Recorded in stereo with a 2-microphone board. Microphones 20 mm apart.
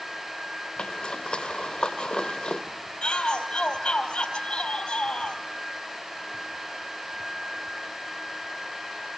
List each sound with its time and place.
0.8 s a zipper: 55° left (ahead or behind), 3 m
3.0 s a shout: 55° left (ahead or behind), 3.5 m